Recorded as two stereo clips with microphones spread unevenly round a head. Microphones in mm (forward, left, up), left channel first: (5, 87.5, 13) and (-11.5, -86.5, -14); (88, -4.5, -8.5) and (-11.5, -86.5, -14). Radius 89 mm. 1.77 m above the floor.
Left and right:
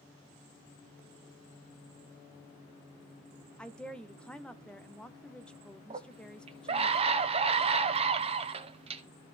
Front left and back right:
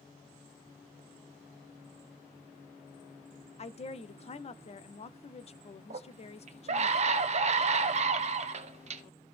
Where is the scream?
150° right, 0.9 m.